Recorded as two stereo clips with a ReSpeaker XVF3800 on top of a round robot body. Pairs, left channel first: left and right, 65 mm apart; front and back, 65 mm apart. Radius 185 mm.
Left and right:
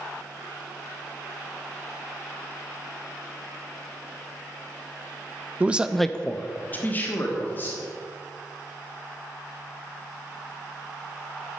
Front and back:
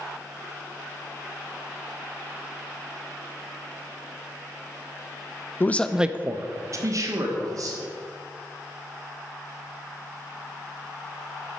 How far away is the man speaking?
About 0.6 m.